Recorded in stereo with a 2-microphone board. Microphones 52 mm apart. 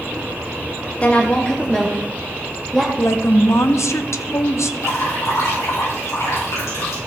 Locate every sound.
1.0 s a woman speaking: 25° left (ahead or behind), 0.6 m; by 2.9 s 10° left (ahead or behind), 1.7 m
3.0 s a woman speaking: 60° left (ahead or behind), 0.7 m
4.8 s dripping: 75° left (ahead or behind), 5 m